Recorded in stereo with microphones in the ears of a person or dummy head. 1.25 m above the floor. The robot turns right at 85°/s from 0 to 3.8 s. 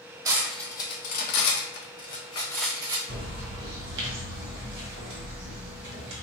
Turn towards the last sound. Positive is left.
turn(degrees=-65)